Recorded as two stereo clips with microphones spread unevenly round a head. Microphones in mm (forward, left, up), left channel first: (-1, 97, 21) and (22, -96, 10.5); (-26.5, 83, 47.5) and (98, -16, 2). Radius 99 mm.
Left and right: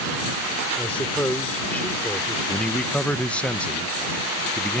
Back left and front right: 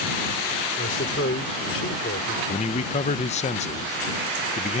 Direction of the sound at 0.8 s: Straight behind.